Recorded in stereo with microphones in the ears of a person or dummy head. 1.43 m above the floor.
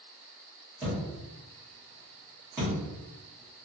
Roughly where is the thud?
Centre.